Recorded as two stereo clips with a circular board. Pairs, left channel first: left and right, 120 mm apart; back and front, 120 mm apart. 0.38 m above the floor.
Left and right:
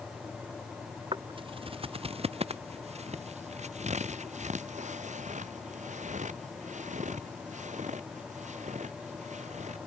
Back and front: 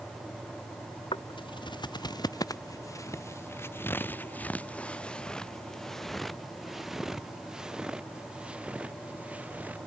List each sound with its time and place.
1.1 s footsteps: 135° right; by 9.8 s 75° right